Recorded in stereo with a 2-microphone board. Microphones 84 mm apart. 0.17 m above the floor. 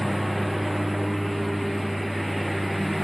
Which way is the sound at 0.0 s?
Centre (ahead or behind).